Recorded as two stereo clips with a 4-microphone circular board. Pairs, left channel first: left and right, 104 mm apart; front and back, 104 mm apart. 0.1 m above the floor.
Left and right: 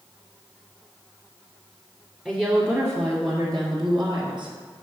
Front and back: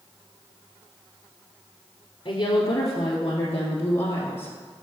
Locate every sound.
2.2 s a woman speaking: 10° right, 1.4 m; by 4.5 s 65° right, 2 m